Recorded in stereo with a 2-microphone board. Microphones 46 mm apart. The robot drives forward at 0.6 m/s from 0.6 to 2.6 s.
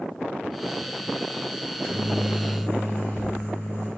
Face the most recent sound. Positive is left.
turn(degrees=70)  # may be behind; listen again after turning